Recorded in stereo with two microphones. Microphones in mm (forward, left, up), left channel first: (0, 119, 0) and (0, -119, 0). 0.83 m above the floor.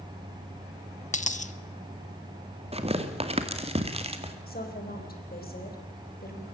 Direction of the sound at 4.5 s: 40° left (ahead or behind).